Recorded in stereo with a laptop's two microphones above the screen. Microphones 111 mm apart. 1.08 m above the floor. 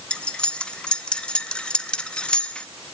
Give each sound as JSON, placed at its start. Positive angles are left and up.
{"t": 0.1, "sound": "cutlery clinking", "side_deg": 10, "distance_m": 0.7}